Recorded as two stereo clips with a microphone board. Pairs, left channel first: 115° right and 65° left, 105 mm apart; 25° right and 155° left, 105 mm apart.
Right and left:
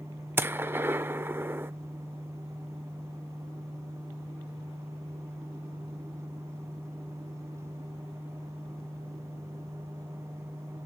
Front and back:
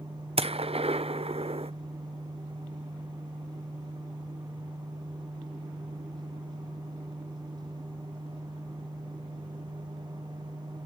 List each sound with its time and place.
0.4 s a gunshot: 135° left, 0.5 m